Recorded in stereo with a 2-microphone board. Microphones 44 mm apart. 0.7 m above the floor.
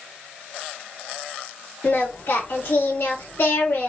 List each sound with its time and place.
1.8 s singing: 65° left (ahead or behind), 2 m